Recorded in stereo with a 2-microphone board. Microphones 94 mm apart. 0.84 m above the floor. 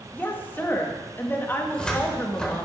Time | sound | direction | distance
0.1 | a woman speaking | 20° left (ahead or behind) | 0.8 m
1.6 | a cupboard door | 10° left (ahead or behind) | 0.7 m